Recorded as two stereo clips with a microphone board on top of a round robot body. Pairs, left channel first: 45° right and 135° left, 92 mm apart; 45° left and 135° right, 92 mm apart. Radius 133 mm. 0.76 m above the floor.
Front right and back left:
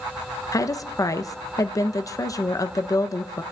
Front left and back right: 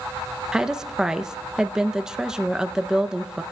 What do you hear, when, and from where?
0.5 s a woman speaking: 55° right, 0.6 m